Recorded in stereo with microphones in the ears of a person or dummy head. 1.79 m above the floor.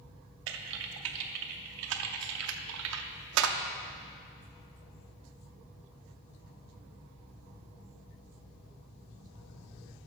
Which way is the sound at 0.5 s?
75° right (ahead or behind).